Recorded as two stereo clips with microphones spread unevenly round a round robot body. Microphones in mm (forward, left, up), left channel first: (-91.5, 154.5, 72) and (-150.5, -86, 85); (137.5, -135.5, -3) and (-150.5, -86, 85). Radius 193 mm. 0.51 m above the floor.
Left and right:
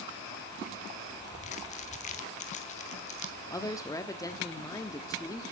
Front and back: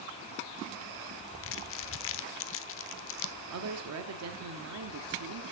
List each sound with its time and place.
1.4 s crumpling: 15° left, 0.8 m
3.5 s a woman speaking: 140° left, 1.3 m